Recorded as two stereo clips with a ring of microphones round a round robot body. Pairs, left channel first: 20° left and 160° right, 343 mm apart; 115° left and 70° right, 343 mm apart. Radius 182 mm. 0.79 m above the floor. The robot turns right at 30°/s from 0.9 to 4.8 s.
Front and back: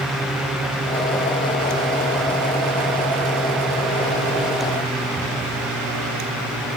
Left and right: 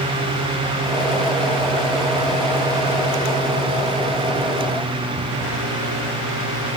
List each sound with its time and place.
Only background noise.